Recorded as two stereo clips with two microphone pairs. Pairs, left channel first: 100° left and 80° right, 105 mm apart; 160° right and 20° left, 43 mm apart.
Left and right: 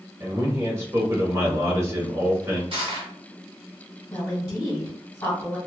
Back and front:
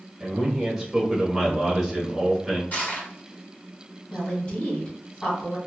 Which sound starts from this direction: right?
Crushing, at 2.7 s.